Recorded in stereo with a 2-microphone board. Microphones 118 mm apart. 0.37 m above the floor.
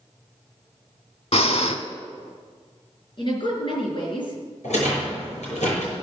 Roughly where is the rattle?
Left.